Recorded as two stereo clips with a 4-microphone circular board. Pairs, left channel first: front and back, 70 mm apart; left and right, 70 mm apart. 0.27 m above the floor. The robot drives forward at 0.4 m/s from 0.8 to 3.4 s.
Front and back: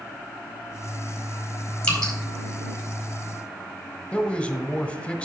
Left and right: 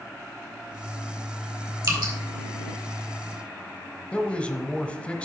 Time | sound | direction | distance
1.8 | dripping | 75° right | 4 m
4.1 | a man speaking | 45° left | 0.9 m